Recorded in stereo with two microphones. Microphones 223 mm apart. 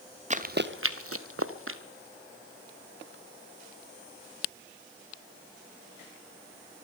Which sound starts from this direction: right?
Running footsteps, at 0.3 s.